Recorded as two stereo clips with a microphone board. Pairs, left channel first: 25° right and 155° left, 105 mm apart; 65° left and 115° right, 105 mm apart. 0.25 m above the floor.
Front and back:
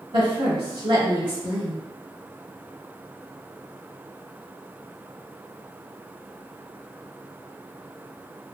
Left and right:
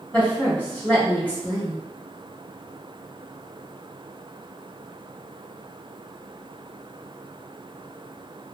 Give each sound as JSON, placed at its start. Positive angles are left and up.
{"t": 0.1, "sound": "a woman speaking", "azimuth_deg": 140, "distance_m": 1.6}